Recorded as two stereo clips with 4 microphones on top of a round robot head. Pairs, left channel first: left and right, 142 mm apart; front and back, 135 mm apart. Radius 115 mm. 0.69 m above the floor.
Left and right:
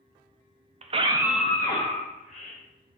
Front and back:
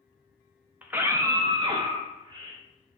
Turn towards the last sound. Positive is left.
turn(degrees=115)